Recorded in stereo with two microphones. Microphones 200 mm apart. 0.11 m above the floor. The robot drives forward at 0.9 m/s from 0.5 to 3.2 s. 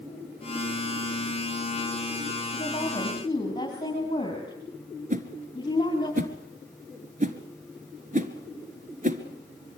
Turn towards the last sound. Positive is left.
turn(degrees=-40)  # may be behind; listen again after turning